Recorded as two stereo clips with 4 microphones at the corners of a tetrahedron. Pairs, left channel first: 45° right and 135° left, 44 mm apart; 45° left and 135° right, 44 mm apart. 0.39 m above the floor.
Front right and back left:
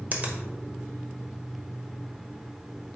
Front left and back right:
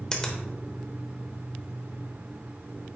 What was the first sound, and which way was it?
A finger snap, 115° left.